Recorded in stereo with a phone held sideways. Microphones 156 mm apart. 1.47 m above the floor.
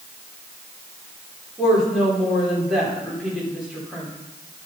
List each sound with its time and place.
1.6 s a woman speaking: centre (ahead or behind), 5 m